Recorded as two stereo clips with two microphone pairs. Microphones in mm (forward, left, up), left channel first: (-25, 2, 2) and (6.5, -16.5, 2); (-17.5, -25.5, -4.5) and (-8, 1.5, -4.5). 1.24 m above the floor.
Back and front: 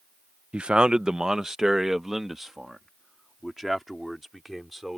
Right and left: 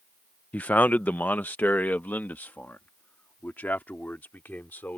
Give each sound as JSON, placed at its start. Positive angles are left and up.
{"t": 0.5, "sound": "a man speaking", "azimuth_deg": -90}